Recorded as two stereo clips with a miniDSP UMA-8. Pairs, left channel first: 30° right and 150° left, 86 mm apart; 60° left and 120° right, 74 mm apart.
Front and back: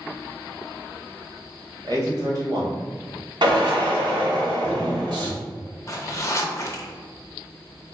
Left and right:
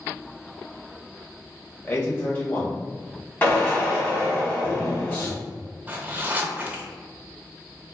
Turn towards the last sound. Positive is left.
turn(degrees=-65)